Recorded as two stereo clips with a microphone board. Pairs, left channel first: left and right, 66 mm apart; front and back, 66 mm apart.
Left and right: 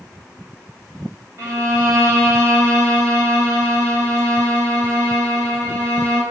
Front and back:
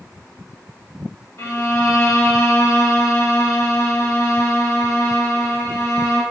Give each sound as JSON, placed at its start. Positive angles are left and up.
{"t": 1.4, "sound": "a violin", "azimuth_deg": -50, "distance_m": 3.0}